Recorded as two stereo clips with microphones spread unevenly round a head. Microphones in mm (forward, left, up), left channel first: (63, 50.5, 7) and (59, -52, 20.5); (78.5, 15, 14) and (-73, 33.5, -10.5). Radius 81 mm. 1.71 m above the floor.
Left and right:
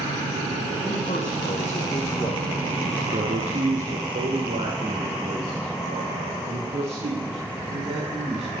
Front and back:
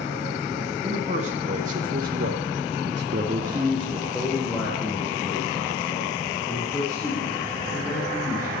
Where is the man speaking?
125° left, 2.5 m; by 8.5 s 75° right, 6.5 m.